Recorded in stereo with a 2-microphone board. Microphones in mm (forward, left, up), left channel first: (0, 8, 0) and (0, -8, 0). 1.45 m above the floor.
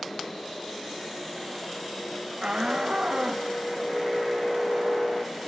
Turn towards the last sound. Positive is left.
turn(degrees=-60)  # may be behind; listen again after turning